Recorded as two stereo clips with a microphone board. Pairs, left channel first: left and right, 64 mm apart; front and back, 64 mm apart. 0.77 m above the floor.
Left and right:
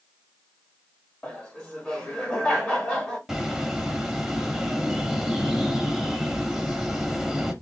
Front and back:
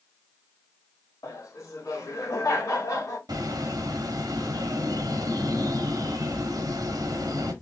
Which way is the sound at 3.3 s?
Straight behind.